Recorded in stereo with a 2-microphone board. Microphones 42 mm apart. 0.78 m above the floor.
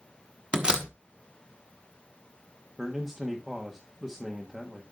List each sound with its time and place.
0.5 s a door slam: 25° right (ahead or behind), 1.1 m
2.8 s a man speaking: 10° right (ahead or behind), 1.2 m